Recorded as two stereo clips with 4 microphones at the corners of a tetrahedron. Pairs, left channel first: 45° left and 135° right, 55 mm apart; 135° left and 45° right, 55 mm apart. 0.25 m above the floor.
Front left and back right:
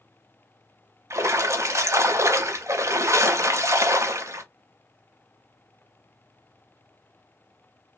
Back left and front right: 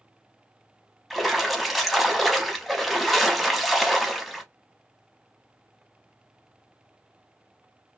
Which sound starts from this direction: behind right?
A splash, at 1.1 s.